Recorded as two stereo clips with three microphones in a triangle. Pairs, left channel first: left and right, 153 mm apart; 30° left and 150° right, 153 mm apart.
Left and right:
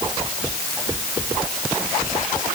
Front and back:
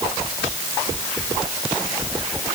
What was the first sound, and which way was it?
Only background noise.